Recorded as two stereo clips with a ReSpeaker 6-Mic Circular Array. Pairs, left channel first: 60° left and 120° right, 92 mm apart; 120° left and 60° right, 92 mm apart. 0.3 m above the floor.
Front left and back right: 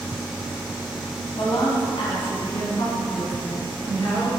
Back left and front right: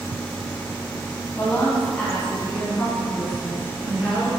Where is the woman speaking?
65° left, 1.9 m; by 4.3 s 20° left, 4.5 m.